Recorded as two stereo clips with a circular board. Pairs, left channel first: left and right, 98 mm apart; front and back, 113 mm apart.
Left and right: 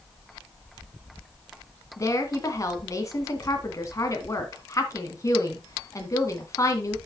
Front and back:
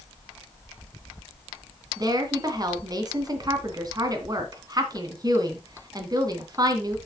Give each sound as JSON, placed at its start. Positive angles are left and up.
{"t": 2.0, "sound": "a woman speaking", "azimuth_deg": 135, "distance_m": 2.0}